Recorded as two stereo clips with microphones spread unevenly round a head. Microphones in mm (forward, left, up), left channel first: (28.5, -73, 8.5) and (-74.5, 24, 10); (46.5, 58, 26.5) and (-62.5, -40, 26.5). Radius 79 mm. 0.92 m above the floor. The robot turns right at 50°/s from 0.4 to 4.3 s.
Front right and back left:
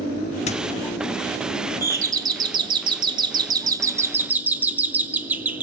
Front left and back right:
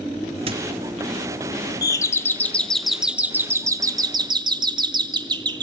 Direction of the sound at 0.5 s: 85° right.